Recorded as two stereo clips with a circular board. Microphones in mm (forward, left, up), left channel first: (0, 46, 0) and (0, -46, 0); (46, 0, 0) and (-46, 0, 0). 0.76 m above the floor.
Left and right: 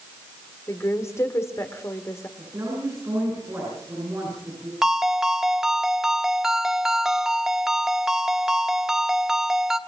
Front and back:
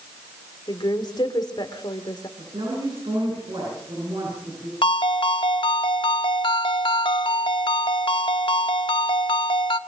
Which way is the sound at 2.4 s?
150° right.